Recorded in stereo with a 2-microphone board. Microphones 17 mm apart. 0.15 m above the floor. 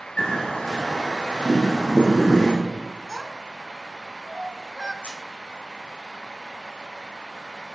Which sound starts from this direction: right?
A child speaking, at 3.1 s.